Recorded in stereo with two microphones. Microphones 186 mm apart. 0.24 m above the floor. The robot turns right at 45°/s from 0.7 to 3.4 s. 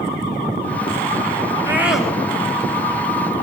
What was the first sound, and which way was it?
A scream, 15° right (ahead or behind).